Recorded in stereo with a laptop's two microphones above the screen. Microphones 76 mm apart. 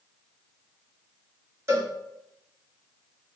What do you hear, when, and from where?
1.7 s a cowbell: 40° right (ahead or behind), 1.4 m